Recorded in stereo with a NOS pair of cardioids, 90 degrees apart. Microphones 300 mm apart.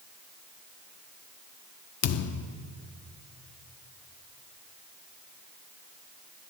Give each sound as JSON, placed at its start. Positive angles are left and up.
{"t": 2.0, "sound": "a thud", "azimuth_deg": 55, "distance_m": 1.1}